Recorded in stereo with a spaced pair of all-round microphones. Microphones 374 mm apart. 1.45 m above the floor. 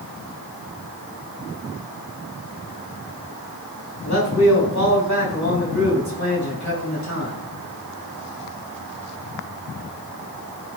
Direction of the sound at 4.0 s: 50° left (ahead or behind).